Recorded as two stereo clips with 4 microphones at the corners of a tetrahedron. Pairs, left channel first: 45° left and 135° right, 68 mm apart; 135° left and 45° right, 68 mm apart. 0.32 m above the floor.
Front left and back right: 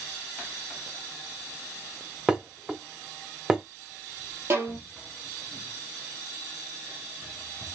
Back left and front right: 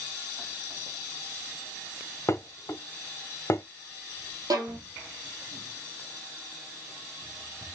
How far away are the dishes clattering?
About 1.0 m.